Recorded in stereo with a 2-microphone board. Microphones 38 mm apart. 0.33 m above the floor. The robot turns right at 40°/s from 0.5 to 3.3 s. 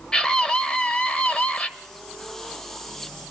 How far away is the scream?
About 1.2 m.